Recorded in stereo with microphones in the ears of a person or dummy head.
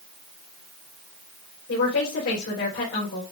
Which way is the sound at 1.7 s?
80° left.